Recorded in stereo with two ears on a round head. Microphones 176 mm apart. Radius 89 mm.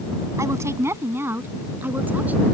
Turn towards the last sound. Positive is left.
turn(degrees=-10)  # may be behind; listen again after turning